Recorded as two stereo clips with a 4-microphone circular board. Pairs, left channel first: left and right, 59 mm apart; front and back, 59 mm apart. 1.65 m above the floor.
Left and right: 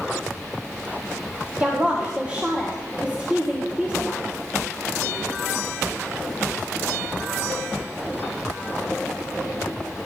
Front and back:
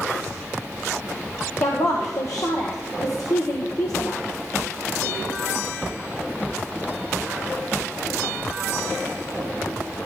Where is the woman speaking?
20° right, 1.4 m.